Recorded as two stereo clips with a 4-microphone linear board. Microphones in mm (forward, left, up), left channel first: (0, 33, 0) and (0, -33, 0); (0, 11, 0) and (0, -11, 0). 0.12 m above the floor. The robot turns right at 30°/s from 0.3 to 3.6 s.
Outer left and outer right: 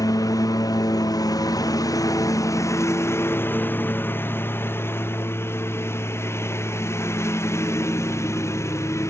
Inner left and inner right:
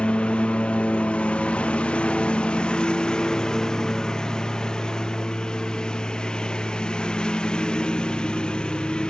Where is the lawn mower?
75° left (ahead or behind); by 9.1 s 50° left (ahead or behind).